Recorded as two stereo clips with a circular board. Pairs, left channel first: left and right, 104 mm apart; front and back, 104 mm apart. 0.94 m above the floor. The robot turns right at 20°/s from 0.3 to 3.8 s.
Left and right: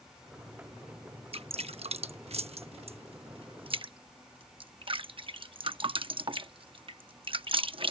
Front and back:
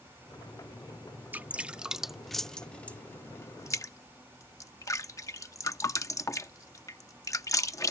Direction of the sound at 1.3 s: 105° right.